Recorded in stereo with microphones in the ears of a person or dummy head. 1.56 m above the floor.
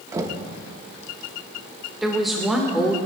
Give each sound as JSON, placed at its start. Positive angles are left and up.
{"t": 0.1, "sound": "knocking", "side_deg": -20, "distance_m": 1.3}
{"t": 2.0, "sound": "a woman speaking", "side_deg": 0, "distance_m": 1.6}